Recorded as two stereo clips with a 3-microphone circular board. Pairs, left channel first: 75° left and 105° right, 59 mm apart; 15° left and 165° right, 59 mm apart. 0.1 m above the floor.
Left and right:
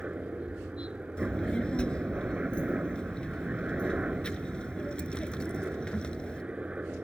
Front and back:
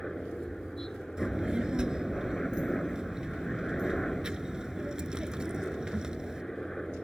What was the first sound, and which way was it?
A helicopter, 60° right.